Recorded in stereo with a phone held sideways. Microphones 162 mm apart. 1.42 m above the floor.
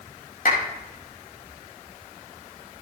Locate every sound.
0.5 s a clap: 75° left (ahead or behind), 5.5 m